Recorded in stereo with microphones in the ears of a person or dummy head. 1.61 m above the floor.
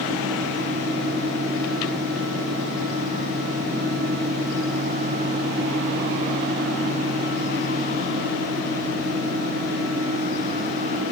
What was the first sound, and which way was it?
Only background noise.